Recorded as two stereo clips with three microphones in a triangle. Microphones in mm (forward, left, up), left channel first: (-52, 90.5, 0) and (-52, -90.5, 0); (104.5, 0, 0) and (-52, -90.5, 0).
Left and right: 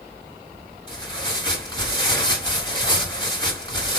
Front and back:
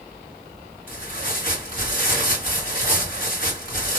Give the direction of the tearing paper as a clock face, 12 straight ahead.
11 o'clock.